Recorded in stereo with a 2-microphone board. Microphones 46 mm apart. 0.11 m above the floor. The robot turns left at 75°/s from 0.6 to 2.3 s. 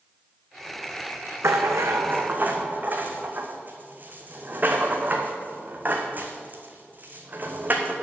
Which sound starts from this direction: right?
A rattle, at 1.4 s.